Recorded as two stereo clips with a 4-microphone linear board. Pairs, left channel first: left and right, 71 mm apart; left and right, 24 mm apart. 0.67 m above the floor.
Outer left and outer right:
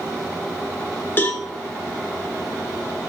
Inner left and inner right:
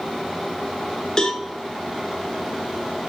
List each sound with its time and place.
1.2 s a cowbell: 30° left (ahead or behind), 1.4 m